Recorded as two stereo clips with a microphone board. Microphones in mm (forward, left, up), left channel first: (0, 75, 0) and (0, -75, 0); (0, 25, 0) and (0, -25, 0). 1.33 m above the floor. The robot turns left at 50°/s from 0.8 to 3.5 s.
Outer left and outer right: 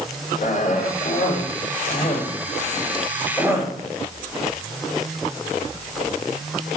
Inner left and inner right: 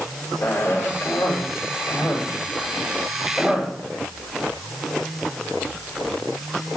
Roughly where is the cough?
Left.